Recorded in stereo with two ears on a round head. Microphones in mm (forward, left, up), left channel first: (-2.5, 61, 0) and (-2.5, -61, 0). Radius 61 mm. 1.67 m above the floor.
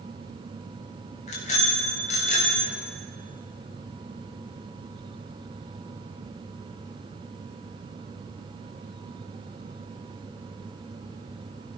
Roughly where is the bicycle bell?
Left.